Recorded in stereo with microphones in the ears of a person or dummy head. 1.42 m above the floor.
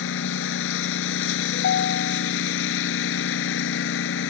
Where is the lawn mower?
75° left (ahead or behind).